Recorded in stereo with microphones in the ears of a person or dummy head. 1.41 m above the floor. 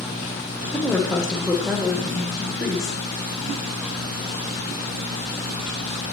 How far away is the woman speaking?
About 0.8 m.